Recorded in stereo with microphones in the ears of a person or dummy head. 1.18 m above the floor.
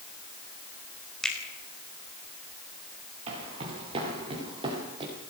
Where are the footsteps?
35° right (ahead or behind), 7 m; by 5.1 s 25° right (ahead or behind), 8 m.